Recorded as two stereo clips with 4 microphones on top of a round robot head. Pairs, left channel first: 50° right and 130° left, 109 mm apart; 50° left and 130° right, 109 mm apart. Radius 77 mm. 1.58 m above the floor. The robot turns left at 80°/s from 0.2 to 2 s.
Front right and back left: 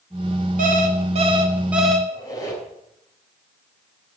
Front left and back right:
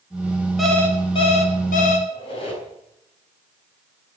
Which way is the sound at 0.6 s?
140° left.